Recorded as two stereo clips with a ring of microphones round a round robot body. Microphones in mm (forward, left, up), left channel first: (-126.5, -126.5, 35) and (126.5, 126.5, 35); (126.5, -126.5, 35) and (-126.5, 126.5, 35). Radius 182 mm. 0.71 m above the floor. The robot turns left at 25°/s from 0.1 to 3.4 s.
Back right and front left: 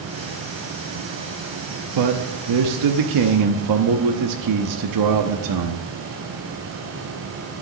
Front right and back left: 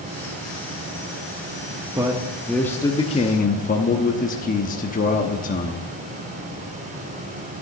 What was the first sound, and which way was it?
A man speaking, 55° left.